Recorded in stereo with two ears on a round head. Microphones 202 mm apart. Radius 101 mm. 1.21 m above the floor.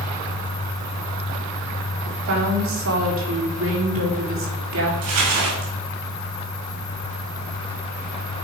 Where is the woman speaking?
65° right (ahead or behind), 3.5 m.